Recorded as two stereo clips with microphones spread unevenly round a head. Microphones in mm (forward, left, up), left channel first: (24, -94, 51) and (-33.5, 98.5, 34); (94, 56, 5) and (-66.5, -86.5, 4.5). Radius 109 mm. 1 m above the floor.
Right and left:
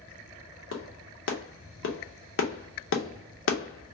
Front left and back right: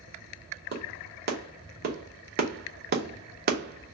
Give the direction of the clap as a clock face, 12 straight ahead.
3 o'clock.